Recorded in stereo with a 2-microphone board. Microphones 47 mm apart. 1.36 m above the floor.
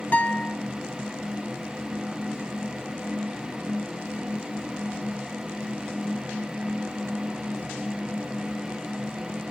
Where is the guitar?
40° left (ahead or behind), 1.0 m.